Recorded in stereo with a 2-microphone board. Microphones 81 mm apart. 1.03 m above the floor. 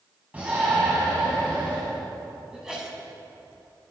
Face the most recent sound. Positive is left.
turn(degrees=-5)  # may be behind; listen again after turning